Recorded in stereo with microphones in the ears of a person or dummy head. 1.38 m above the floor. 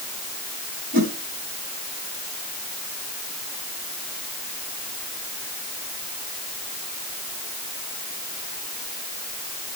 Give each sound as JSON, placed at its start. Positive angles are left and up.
{"t": 0.9, "sound": "a whoosh", "side_deg": -50, "distance_m": 3.0}